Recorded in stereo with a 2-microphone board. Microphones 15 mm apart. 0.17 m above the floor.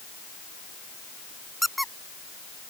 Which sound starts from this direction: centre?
A squeak, at 1.6 s.